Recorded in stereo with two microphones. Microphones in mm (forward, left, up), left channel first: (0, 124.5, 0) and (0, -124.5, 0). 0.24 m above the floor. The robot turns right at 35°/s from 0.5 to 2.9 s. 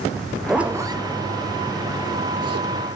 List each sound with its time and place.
0.2 s a zipper: centre (ahead or behind), 1.1 m; by 2.7 s 75° right (ahead or behind), 1.1 m